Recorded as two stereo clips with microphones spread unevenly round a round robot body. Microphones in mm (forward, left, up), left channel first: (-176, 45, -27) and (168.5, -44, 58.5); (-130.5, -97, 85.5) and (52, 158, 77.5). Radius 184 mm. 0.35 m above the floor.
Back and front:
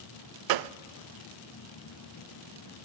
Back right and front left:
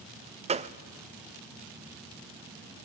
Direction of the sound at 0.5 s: 5° right.